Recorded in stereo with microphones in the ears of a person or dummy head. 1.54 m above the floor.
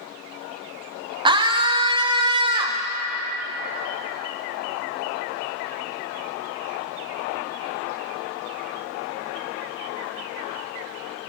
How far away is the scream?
About 0.7 m.